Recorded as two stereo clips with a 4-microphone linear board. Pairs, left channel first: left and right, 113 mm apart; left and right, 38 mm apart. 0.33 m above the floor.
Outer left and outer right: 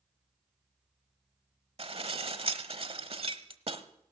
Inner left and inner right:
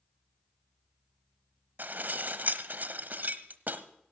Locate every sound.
1.8 s dishes clattering: 60° right (ahead or behind), 1.0 m